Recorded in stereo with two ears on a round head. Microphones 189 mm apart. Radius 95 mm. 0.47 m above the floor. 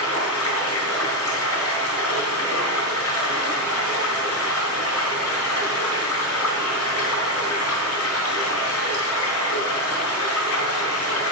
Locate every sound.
0.0 s running water: 70° left (ahead or behind), 4.5 m